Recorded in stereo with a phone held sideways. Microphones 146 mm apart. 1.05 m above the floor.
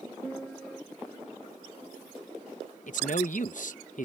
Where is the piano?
5° left (ahead or behind).